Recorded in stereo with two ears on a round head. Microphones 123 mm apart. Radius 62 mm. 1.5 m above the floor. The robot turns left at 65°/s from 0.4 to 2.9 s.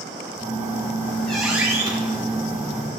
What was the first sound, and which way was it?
A squeak, 65° left.